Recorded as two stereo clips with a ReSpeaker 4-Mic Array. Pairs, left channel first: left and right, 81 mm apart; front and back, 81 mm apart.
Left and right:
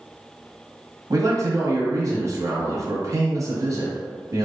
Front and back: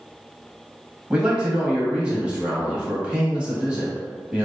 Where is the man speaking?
110° right, 1.3 m.